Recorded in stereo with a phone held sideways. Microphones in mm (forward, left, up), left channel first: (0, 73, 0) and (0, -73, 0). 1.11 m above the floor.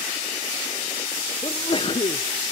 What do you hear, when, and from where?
1.4 s a sneeze: 35° left (ahead or behind), 0.5 m